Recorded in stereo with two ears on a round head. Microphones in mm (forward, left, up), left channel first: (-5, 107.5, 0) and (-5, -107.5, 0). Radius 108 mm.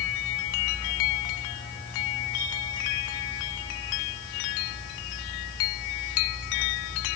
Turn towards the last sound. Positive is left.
No sound to turn to.